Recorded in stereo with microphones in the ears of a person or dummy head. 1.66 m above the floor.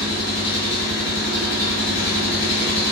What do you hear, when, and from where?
0.0 s an engine running: 55° left (ahead or behind), 2.0 m